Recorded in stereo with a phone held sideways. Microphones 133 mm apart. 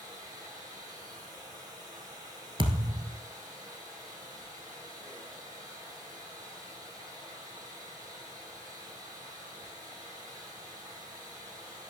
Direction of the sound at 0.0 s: 30° right (ahead or behind).